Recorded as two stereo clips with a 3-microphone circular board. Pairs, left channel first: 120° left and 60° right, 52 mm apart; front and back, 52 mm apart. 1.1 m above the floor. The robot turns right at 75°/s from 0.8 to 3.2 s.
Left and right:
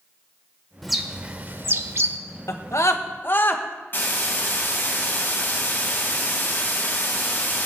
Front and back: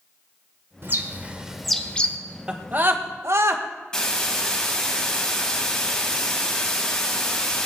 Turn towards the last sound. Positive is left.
turn(degrees=70)